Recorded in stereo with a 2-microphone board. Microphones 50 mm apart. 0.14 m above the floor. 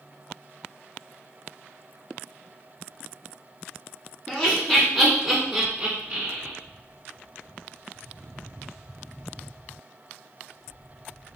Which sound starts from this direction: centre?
Laughter, at 4.3 s.